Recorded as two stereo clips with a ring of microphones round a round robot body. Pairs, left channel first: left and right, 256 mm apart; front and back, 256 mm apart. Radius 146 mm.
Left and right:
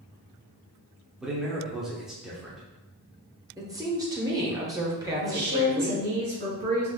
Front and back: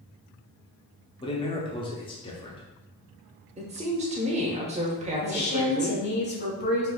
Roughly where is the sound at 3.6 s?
Behind right.